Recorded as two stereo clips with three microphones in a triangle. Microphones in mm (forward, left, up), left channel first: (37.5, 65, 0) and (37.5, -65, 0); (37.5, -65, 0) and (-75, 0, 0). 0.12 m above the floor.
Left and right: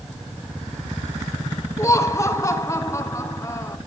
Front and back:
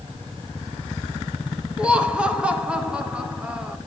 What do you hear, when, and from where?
1.8 s laughter: 80° left, 1.1 m